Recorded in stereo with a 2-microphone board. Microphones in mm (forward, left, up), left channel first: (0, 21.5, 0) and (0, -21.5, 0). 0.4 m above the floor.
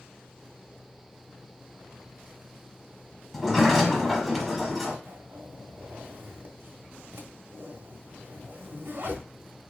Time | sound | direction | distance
3.3 | a sliding door | 5° right (ahead or behind) | 1.2 m
5.0 | a zipper | 60° right (ahead or behind) | 1.0 m